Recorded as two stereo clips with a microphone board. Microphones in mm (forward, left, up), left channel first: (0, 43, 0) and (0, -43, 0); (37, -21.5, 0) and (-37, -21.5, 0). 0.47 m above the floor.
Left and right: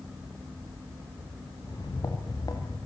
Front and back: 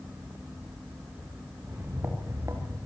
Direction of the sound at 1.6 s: 125° left.